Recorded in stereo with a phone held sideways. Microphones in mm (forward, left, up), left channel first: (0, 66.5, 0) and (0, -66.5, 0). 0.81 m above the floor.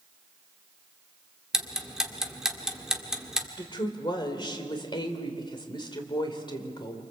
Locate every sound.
1.5 s ticking: 5° right (ahead or behind), 2.0 m
3.6 s a woman speaking: 35° left (ahead or behind), 3 m